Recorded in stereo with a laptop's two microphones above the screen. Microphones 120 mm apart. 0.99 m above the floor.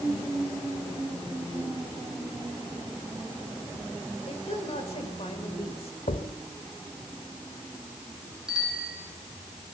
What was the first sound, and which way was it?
A woman speaking, 55° left (ahead or behind).